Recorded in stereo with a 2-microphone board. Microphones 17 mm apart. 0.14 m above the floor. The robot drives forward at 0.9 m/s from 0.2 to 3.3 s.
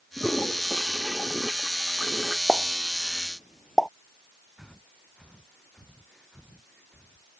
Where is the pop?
10° left (ahead or behind); by 3.9 s 5° left (ahead or behind).